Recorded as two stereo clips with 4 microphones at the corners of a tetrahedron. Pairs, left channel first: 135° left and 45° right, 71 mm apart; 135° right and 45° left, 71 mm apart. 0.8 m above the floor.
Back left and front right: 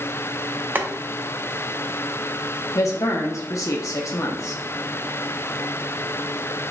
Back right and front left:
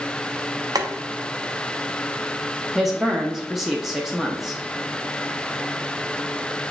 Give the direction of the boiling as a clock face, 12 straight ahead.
11 o'clock.